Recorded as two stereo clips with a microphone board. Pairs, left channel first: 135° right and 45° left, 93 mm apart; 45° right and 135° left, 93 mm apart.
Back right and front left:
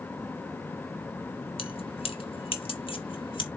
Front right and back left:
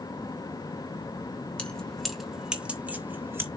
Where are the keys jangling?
120° right, 1.3 m; by 3.5 s 160° right, 1.5 m.